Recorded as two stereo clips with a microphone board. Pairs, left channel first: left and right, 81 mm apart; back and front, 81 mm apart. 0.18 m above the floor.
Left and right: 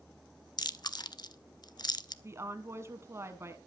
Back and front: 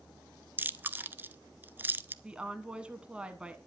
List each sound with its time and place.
0.6 s chewing: 65° left, 0.5 m
2.2 s a woman speaking: 70° right, 1.4 m